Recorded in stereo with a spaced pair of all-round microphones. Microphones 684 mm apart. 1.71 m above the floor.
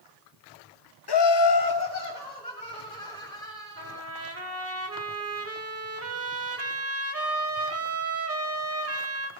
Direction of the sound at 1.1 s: 35° left (ahead or behind).